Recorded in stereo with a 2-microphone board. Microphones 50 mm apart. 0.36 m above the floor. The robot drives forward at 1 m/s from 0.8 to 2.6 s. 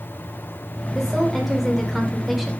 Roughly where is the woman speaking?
Centre.